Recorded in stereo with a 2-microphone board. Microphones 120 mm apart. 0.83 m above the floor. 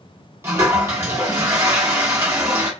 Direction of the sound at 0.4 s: 25° right (ahead or behind).